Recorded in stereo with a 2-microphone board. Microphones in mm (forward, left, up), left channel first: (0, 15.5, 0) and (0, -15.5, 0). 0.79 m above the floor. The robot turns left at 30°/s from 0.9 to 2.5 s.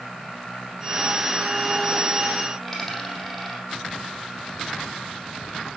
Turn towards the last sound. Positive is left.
turn(degrees=15)  # may be behind; listen again after turning